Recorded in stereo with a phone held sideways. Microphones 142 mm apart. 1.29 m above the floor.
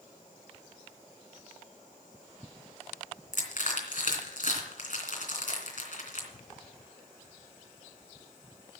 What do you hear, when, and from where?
3.3 s crushing: 70° left (ahead or behind), 3 m